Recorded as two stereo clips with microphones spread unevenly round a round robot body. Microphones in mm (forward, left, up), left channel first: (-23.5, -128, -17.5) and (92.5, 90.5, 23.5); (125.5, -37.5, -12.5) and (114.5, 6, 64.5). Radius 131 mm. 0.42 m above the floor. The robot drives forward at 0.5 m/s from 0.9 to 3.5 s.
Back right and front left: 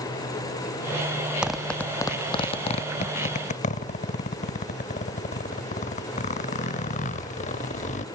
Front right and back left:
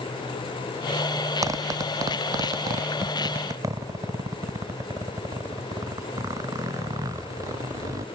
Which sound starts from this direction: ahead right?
A zipper, at 1.4 s.